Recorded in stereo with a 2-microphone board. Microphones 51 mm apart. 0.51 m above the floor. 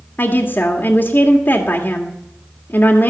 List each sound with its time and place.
0.2 s a woman speaking: 35° left (ahead or behind), 1.6 m